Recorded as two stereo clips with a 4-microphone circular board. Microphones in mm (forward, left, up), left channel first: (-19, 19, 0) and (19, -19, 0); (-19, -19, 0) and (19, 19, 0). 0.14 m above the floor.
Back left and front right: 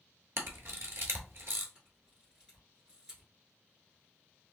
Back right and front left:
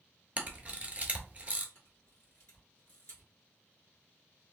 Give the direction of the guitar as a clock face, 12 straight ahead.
No guitar in this recording.